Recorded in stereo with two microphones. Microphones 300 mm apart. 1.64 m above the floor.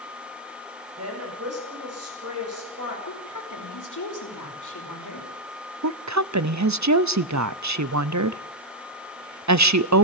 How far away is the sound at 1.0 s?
About 7 m.